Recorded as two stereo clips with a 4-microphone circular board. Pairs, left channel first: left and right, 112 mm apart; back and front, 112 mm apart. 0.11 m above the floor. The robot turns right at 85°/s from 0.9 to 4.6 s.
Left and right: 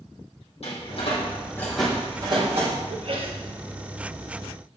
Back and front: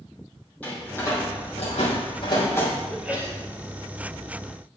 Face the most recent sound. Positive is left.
turn(degrees=50)